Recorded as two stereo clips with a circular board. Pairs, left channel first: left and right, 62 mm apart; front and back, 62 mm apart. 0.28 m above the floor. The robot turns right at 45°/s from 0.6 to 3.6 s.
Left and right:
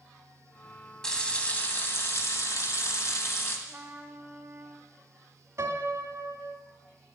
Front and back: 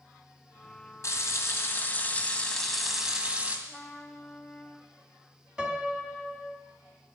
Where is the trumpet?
80° right, 1.2 m.